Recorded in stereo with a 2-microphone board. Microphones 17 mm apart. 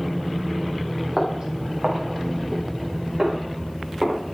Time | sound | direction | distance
1.2 | footsteps | 45° right (ahead or behind) | 4.5 m